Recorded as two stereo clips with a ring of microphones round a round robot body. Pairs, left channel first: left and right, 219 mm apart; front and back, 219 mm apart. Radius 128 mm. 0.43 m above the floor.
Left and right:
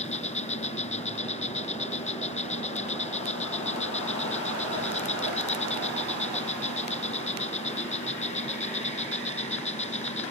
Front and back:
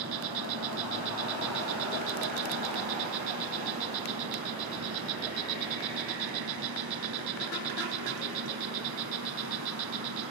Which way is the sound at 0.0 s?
150° left.